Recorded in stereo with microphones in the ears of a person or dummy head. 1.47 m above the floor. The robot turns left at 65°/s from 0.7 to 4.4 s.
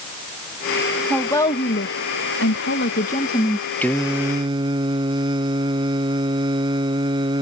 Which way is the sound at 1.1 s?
Straight behind.